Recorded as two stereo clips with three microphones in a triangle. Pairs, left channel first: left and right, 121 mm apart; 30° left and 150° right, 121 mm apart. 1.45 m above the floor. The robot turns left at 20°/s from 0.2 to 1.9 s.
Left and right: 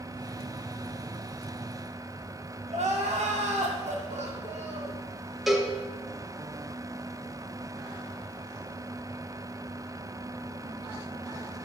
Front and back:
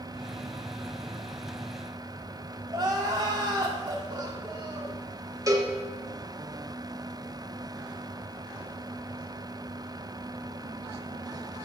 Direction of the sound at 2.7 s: 100° right.